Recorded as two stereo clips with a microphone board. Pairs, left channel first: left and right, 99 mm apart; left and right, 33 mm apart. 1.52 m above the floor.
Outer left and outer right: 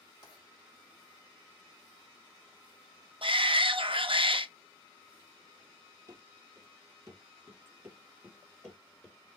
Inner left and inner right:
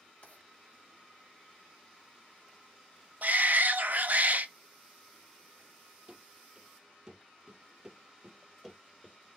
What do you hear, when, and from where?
0.2 s writing: 50° left (ahead or behind), 3.5 m
3.2 s a shout: 60° right (ahead or behind), 0.6 m
6.1 s running footsteps: 35° right (ahead or behind), 2.5 m; by 9.4 s centre (ahead or behind), 1.5 m